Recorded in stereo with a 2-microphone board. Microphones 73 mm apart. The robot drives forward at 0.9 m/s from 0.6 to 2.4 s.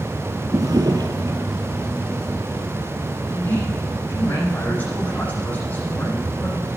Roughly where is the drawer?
Right.